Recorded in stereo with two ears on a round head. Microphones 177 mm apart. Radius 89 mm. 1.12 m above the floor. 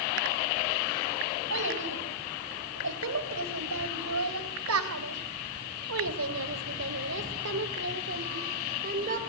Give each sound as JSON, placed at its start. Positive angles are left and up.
{"t": 1.5, "sound": "a child speaking", "side_deg": -65, "distance_m": 5.5}